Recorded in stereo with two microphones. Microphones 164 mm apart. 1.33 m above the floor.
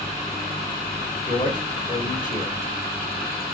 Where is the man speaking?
55° left (ahead or behind), 1.7 m.